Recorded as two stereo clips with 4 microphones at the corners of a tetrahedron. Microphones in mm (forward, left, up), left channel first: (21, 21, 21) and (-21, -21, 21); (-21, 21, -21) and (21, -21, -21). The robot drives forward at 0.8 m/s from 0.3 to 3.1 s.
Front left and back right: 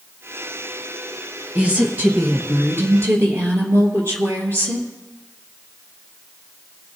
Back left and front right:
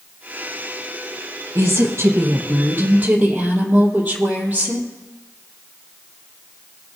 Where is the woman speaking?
75° right, 3 m; by 4.9 s 105° right, 3 m.